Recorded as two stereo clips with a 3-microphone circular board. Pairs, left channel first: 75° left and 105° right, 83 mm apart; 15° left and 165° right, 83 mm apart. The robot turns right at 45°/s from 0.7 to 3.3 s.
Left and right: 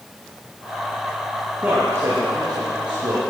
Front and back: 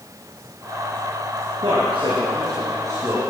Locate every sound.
1.6 s a man speaking: 175° right, 3.5 m; by 3.2 s 100° right, 3.5 m